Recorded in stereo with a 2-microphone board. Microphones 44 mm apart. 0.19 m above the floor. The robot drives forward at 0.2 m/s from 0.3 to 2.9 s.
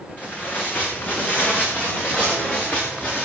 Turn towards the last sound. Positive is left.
turn(degrees=40)  # may be behind; listen again after turning